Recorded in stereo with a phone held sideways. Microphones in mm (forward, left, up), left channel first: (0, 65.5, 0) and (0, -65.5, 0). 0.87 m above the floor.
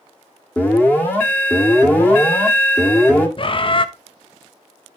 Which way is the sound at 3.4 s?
40° left (ahead or behind).